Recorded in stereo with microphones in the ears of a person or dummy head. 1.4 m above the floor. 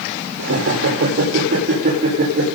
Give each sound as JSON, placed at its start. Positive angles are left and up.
{"t": 0.4, "sound": "laughter", "side_deg": -70, "distance_m": 4.5}